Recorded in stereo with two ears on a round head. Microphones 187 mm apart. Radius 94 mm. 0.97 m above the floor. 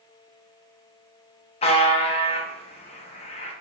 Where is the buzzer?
30° left (ahead or behind), 0.7 m.